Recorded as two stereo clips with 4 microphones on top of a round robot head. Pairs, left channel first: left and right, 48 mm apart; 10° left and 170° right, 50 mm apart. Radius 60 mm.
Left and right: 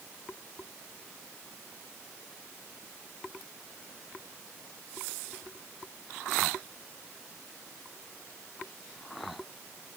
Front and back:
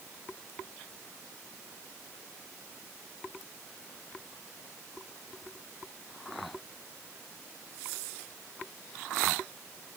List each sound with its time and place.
Only background noise.